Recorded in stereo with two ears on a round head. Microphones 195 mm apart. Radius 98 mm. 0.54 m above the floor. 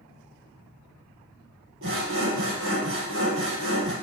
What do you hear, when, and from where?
1.8 s sawing: 65° right (ahead or behind), 2.5 m